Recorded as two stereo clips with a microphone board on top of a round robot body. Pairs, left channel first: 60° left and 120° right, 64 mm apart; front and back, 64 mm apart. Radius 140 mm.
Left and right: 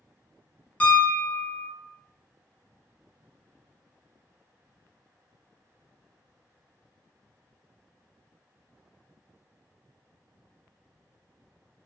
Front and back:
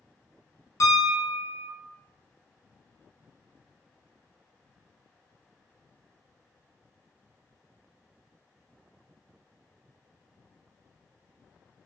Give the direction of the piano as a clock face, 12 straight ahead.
12 o'clock.